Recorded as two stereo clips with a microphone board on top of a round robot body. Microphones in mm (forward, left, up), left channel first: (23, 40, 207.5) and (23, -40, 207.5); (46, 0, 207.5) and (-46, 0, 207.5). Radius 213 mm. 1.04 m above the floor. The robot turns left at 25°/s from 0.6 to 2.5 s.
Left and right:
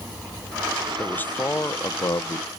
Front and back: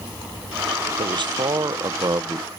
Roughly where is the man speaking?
Behind.